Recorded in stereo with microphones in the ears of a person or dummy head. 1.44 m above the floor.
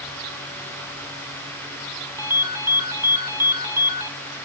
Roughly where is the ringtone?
Centre.